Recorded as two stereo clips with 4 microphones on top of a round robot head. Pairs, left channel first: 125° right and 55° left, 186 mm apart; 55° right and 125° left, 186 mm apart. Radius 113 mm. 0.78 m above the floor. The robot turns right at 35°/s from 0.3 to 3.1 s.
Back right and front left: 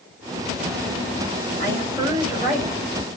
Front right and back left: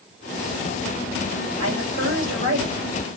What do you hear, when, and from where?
1.6 s a woman speaking: 115° left, 3.5 m; by 2.9 s 160° left, 3.5 m